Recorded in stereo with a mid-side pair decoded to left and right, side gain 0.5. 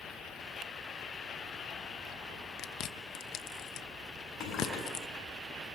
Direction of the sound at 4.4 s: 65° left.